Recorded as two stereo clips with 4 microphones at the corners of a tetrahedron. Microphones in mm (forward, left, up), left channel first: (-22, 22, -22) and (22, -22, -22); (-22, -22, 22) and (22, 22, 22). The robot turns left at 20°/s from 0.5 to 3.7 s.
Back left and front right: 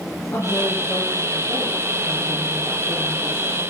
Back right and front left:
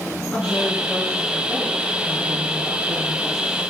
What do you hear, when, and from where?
0.3 s a woman speaking: 145° left, 3 m; by 3.6 s 85° left, 3 m